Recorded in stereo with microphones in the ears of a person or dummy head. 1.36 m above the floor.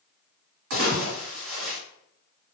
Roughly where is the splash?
Right.